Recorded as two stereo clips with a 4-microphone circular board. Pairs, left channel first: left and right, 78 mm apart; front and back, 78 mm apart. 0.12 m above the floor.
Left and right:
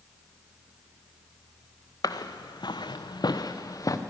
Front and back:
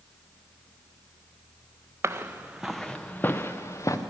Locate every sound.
2.0 s footsteps: 125° left, 0.7 m; by 4.0 s 45° left, 1.1 m